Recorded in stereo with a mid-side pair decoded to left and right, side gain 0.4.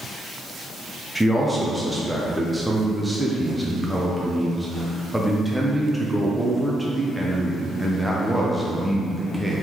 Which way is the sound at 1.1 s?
5° right.